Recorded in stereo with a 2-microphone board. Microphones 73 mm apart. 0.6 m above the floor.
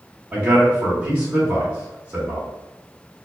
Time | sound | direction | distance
0.3 | a man speaking | 15° right (ahead or behind) | 1.2 m